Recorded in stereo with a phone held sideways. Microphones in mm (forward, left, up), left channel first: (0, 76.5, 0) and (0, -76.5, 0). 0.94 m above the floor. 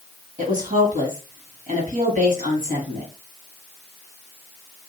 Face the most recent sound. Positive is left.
turn(degrees=-60)  # may be behind; listen again after turning